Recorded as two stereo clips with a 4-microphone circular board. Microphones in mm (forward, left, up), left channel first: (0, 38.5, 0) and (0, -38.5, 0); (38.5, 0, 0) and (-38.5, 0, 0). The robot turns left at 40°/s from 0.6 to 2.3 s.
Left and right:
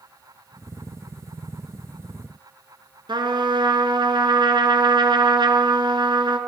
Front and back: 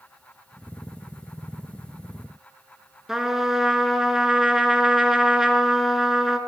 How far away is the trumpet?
About 1.0 m.